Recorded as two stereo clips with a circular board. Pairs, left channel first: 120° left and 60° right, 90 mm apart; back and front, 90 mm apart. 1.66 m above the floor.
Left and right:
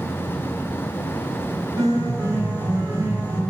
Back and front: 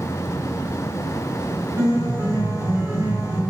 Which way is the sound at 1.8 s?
25° right.